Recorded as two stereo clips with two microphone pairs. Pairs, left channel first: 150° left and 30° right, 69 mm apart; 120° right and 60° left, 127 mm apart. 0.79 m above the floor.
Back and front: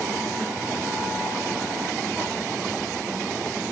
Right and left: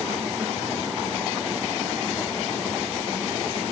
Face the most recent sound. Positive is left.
No sound to turn to.